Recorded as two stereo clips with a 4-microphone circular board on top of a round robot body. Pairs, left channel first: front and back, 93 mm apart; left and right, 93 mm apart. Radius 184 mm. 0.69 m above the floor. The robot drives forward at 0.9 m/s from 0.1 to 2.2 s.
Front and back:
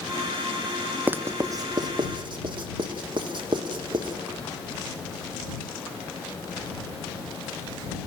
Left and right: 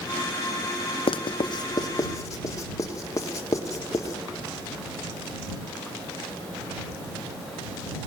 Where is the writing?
105° left, 0.9 m; by 4.2 s 145° left, 1.6 m.